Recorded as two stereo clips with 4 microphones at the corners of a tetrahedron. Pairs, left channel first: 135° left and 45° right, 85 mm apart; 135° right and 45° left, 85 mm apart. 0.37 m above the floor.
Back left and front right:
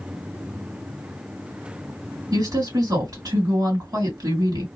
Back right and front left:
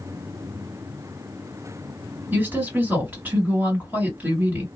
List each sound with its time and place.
2.3 s a woman speaking: 20° right, 2.5 m